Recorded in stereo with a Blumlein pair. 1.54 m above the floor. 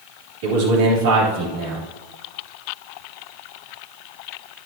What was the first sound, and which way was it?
A man speaking, 50° right.